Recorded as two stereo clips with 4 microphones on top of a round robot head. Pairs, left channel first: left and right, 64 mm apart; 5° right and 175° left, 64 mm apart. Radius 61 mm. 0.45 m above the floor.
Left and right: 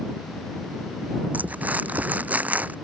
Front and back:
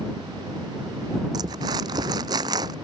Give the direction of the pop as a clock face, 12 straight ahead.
I don't hear a pop.